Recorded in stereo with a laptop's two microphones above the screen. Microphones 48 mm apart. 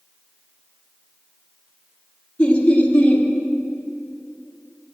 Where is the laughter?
25° left (ahead or behind), 2.5 m.